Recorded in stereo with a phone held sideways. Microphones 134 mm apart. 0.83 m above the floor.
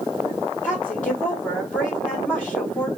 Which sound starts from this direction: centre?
A woman speaking, at 0.6 s.